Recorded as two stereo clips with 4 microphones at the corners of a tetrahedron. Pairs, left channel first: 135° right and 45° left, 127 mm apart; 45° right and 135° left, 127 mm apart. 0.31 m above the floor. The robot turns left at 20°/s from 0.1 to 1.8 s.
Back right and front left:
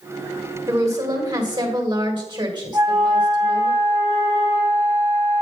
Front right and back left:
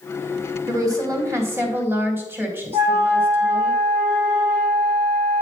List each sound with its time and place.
0.7 s a woman speaking: 95° left, 1.8 m; by 3.7 s 75° left, 1.8 m
2.7 s a flute: 105° left, 3.5 m